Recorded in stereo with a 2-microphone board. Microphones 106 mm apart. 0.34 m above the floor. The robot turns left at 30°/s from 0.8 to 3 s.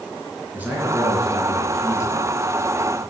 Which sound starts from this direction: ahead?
A man speaking, at 0.5 s.